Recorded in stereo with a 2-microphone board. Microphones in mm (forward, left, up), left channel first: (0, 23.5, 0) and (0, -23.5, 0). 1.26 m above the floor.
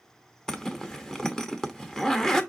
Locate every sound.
0.5 s a zipper: 15° left (ahead or behind), 0.9 m